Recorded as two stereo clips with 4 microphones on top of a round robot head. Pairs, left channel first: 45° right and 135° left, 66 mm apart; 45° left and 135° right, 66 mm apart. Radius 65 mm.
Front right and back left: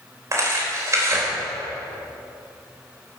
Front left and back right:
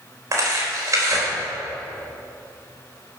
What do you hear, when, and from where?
0.3 s tearing paper: straight behind, 4 m